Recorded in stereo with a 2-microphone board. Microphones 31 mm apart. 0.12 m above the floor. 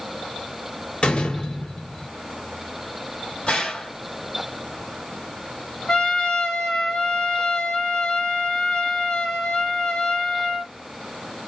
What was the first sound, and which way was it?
A door slam, 35° left (ahead or behind).